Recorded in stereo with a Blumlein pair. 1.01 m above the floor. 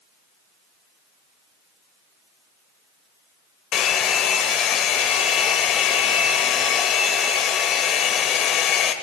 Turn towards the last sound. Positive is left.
turn(degrees=30)